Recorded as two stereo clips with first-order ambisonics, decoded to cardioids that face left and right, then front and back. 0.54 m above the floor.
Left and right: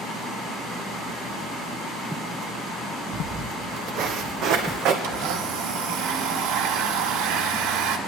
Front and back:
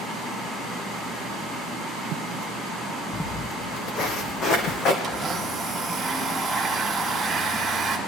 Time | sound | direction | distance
3.1 | footsteps | 40° right | 0.8 m
5.0 | a blender | 95° right | 1.5 m